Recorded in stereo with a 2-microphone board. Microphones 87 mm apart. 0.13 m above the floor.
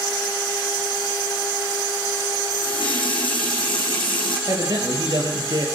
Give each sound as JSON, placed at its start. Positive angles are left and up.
{"t": 2.5, "sound": "a running tap", "side_deg": 70, "distance_m": 4.0}
{"t": 4.5, "sound": "a man speaking", "side_deg": -50, "distance_m": 3.0}